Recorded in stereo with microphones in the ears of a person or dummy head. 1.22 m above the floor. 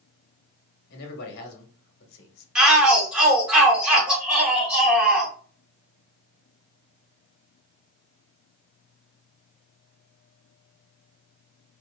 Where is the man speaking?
60° left (ahead or behind), 1.7 m.